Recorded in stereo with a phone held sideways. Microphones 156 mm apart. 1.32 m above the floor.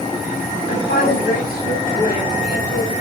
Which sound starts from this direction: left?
A woman speaking, at 0.7 s.